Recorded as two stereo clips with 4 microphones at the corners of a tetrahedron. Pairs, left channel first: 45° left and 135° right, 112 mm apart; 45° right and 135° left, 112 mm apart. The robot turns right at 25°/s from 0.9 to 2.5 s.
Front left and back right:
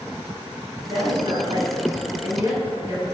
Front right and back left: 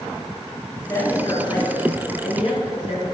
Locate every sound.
0.9 s a woman speaking: 110° right, 4.5 m; by 3.0 s 70° right, 4.5 m